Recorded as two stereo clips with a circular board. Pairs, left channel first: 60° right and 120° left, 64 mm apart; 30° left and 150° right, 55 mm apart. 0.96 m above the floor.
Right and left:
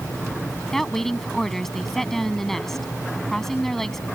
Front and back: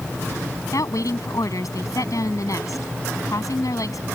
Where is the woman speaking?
25° left.